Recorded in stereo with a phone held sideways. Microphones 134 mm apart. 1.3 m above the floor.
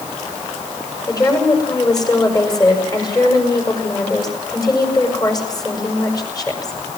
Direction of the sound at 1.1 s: 30° left (ahead or behind).